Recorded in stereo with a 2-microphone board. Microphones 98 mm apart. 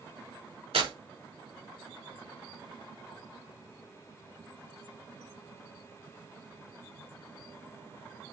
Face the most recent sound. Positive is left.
turn(degrees=-80)